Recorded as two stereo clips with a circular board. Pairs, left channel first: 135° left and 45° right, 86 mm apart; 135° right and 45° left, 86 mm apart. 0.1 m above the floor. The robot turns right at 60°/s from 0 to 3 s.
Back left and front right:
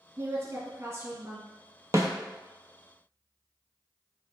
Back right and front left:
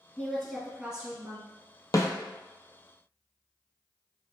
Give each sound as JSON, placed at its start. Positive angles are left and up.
{"t": 0.2, "sound": "a woman speaking", "azimuth_deg": -70, "distance_m": 1.5}
{"t": 1.9, "sound": "a snare drum", "azimuth_deg": -95, "distance_m": 0.6}